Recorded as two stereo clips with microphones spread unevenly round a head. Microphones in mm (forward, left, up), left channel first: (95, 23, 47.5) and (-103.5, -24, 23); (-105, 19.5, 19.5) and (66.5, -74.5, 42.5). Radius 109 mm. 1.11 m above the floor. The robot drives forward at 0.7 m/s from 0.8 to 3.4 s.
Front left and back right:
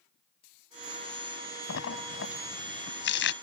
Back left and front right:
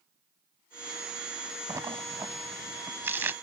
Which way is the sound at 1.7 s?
45° left.